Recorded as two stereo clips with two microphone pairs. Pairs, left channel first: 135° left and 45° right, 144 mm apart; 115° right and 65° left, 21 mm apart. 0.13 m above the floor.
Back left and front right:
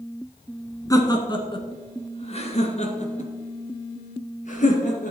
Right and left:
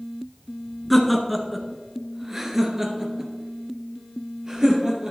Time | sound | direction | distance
0.9 | laughter | 165° left | 1.3 m